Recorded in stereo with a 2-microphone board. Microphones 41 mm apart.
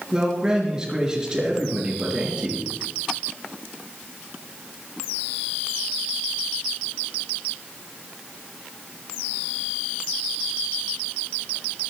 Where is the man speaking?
15° right (ahead or behind), 4.5 m.